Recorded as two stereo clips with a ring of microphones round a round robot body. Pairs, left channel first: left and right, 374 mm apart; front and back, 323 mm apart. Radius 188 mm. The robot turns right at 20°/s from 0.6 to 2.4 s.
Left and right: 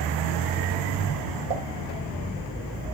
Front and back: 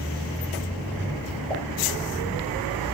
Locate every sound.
1.5 s a pop: 80° right, 1.8 m